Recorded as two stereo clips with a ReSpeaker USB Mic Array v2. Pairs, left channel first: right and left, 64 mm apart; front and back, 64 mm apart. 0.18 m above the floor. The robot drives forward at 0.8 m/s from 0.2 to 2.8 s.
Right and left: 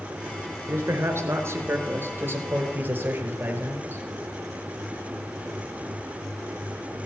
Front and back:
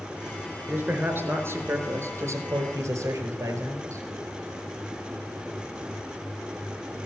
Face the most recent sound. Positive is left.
turn(degrees=145)